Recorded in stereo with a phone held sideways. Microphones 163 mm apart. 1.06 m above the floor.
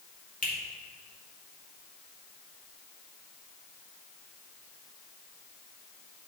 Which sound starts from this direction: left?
A finger snap, at 0.4 s.